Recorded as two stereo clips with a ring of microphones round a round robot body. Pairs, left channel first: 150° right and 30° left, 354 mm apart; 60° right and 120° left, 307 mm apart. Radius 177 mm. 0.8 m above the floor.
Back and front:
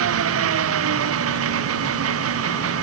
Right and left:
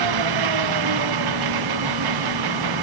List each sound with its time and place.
0.0 s an engine running: 85° left